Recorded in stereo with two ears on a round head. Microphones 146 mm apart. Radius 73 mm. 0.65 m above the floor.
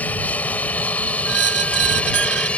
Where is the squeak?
80° right.